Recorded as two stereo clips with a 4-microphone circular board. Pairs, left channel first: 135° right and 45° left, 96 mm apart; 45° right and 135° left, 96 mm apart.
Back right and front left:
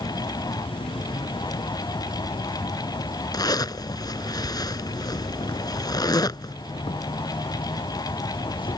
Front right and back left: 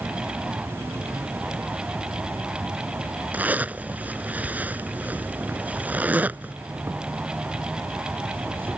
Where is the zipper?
160° right.